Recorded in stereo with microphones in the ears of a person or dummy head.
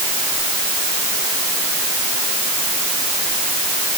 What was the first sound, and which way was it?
Only background noise.